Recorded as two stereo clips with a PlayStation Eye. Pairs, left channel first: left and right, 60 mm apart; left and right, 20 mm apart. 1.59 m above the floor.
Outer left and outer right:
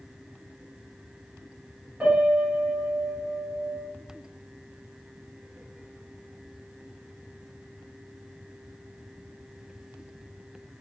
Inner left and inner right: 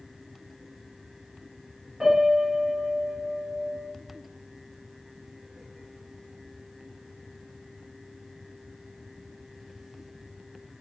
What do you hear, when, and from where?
2.0 s a piano: 20° right (ahead or behind), 1.1 m